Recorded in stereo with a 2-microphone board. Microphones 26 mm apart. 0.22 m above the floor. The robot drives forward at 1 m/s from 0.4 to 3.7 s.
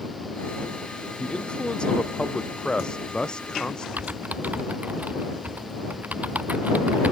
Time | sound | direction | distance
1.2 | a man speaking | 35° left (ahead or behind) | ?
4.0 | typing on a keyboard | 85° right | ?